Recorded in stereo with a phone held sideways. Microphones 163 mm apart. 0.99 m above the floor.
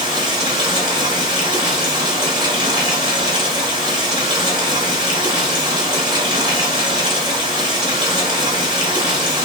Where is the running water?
25° right (ahead or behind), 0.9 m.